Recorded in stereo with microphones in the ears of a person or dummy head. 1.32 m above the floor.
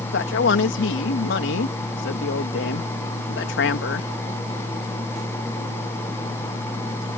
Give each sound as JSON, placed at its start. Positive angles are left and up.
{"t": 0.1, "sound": "a man speaking", "side_deg": 75}